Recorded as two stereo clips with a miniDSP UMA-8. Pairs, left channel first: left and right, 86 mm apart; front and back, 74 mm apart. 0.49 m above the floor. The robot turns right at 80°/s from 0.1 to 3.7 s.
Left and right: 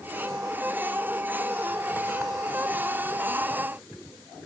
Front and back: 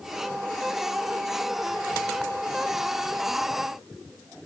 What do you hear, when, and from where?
Only background noise.